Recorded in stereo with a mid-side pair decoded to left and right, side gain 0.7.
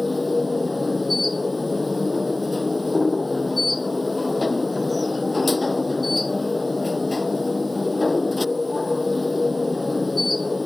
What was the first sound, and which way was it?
A machine running, 10° left.